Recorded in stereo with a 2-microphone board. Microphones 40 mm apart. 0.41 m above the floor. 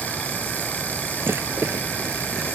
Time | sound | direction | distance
1.2 | a rattle | 90° right | ?